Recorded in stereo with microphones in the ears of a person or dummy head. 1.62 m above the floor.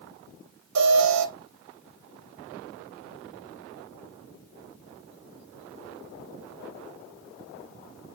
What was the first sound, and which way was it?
An alarm, 85° right.